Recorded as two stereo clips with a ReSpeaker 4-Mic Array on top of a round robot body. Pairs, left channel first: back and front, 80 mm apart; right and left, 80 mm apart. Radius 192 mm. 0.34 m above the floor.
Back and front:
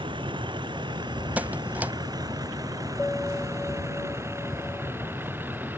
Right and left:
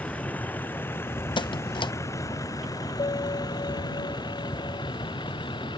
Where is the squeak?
70° right.